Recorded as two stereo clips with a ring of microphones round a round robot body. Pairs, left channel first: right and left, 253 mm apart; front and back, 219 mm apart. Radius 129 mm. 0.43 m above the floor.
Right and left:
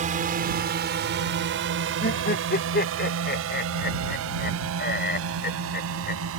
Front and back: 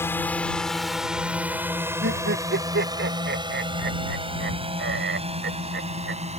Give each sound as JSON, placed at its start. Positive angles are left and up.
{"t": 0.0, "sound": "a drone", "azimuth_deg": 70}
{"t": 2.0, "sound": "laughter", "azimuth_deg": -140}